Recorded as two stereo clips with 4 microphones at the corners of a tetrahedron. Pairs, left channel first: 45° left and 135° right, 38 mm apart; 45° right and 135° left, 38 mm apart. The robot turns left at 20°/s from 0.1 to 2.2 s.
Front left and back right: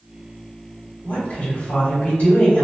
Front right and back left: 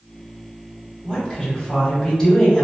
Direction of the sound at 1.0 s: 50° left.